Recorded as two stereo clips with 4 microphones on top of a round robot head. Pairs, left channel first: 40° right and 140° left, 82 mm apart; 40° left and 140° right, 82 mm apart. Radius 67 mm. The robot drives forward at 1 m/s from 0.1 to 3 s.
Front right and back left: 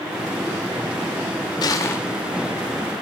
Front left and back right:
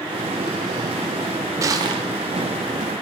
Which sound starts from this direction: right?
Crushing, at 1.6 s.